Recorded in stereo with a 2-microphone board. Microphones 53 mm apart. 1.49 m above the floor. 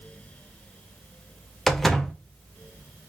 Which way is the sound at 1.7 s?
5° left (ahead or behind).